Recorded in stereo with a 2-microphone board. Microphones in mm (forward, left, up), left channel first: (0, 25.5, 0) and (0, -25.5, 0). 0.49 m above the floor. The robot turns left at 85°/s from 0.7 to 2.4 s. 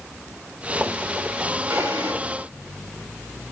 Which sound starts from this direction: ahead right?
A drawer, at 1.7 s.